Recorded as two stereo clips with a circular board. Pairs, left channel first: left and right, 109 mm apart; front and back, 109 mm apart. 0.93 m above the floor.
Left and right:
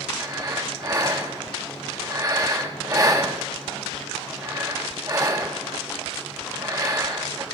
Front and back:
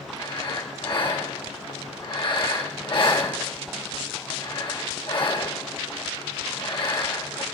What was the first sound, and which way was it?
Breathing, 35° right.